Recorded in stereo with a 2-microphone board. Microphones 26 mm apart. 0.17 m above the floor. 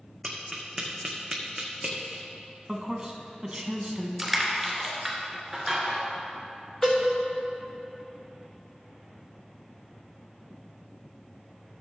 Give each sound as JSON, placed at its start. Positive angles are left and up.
{"t": 0.2, "sound": "tapping", "side_deg": -5, "distance_m": 1.7}
{"t": 2.7, "sound": "a man speaking", "side_deg": -25, "distance_m": 1.2}
{"t": 4.2, "sound": "crushing", "side_deg": -5, "distance_m": 2.5}
{"t": 6.8, "sound": "a cowbell", "side_deg": 20, "distance_m": 3.0}